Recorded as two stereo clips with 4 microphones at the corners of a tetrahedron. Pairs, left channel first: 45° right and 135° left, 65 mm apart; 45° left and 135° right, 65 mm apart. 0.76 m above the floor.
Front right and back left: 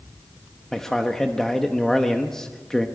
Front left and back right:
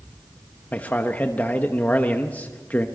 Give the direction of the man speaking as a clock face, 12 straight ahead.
11 o'clock.